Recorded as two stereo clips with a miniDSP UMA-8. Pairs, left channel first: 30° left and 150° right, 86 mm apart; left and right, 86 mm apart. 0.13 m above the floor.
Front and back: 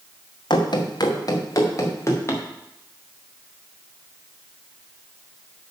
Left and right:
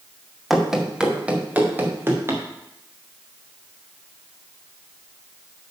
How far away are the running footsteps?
About 2 m.